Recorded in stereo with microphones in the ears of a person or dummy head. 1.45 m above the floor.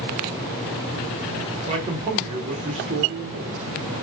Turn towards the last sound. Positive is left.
turn(degrees=-30)  # may be behind; listen again after turning